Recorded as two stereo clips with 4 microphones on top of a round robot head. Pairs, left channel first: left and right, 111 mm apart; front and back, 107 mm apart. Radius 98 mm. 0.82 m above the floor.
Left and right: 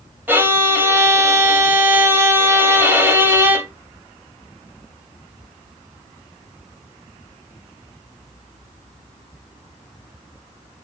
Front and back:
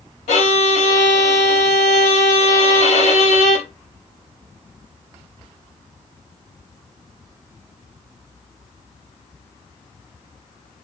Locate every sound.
0.3 s a violin: 20° right, 4 m